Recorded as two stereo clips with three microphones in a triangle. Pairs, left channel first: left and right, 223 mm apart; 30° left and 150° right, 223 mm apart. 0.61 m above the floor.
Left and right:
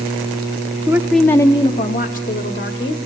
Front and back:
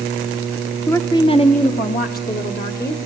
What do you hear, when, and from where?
0.9 s a woman speaking: 40° right, 0.6 m; by 3.1 s 65° left, 1.3 m